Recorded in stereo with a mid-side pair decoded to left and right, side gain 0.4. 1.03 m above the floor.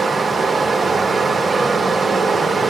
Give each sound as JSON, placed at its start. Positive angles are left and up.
{"t": 0.0, "sound": "running water", "azimuth_deg": -35, "distance_m": 0.8}